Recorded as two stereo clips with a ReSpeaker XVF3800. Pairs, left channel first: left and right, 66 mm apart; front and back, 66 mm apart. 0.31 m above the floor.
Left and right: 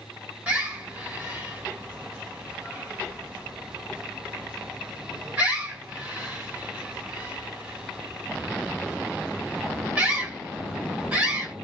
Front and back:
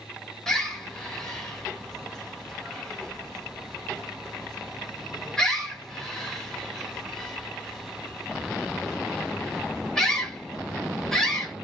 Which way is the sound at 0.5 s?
70° right.